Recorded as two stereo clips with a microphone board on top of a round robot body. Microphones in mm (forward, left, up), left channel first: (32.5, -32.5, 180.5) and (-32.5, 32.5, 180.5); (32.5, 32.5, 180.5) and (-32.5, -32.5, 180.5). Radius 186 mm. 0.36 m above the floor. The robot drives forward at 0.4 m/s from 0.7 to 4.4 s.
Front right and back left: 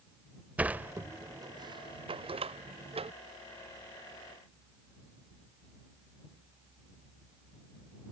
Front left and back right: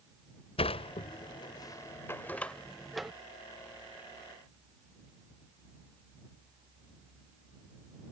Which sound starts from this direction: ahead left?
A sliding door, at 0.6 s.